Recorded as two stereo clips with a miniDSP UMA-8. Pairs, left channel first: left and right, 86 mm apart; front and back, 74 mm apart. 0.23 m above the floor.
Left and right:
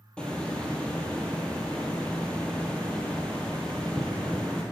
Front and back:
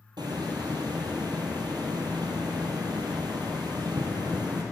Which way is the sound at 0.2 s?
170° left.